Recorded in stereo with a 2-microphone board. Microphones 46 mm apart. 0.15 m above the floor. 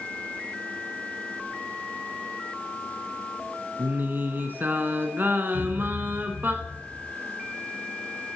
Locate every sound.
3.8 s singing: 40° right (ahead or behind), 1.1 m
5.5 s a thud: 85° right, 7 m